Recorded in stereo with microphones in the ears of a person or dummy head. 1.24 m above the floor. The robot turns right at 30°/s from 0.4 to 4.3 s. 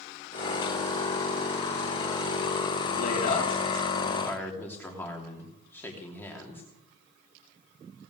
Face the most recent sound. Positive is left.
turn(degrees=165)